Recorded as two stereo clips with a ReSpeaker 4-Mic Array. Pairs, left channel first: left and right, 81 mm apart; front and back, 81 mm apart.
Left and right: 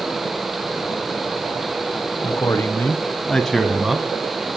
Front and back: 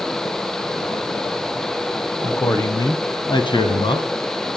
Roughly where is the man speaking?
Ahead left.